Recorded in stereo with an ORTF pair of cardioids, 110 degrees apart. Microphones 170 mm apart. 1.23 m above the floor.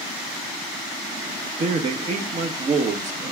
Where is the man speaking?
45° right, 1.1 m.